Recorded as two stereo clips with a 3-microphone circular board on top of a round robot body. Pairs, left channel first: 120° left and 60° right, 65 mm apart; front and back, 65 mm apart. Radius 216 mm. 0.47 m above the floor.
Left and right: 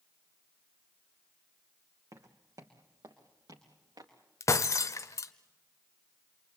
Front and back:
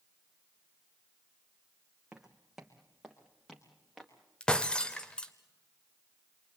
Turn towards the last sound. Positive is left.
turn(degrees=80)